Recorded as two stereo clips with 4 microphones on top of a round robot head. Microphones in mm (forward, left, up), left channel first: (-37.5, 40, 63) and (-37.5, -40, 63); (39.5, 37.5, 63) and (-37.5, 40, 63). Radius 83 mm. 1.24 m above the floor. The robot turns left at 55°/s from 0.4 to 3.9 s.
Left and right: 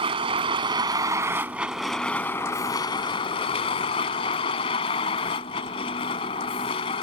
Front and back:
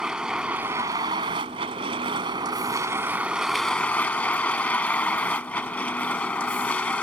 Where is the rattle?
I don't hear a rattle.